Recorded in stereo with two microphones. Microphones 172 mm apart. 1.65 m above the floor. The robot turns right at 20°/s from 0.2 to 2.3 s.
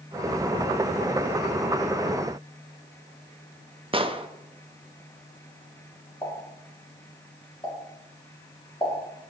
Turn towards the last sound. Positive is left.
turn(degrees=25)  # may be behind; listen again after turning